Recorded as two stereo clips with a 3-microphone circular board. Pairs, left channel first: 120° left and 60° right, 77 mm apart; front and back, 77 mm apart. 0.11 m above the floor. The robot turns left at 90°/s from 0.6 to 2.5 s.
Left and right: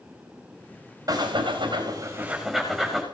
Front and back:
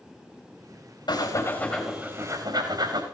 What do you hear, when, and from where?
1.1 s breathing: 25° right, 4.5 m; by 3.0 s 150° right, 4.5 m